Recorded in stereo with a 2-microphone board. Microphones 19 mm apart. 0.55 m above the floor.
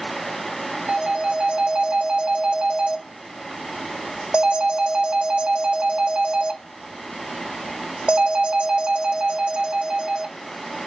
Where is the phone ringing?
75° right (ahead or behind), 1.0 m.